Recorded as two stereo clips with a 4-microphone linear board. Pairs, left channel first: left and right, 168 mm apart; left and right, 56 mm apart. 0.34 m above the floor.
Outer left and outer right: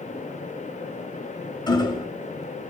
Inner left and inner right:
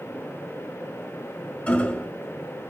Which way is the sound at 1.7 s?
25° left (ahead or behind).